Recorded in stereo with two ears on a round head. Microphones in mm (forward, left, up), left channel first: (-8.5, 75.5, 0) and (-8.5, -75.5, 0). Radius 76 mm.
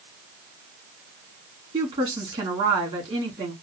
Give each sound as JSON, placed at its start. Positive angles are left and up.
{"t": 1.7, "sound": "a woman speaking", "side_deg": -30, "distance_m": 2.5}